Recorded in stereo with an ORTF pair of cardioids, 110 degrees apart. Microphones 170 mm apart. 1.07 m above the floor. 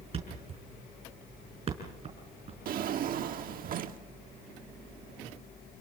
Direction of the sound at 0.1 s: 35° right.